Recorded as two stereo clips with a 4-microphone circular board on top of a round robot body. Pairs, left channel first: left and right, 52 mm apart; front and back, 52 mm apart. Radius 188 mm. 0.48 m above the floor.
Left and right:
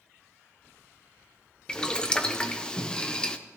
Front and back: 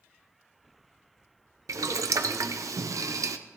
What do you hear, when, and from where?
1.7 s boiling: 165° left, 0.7 m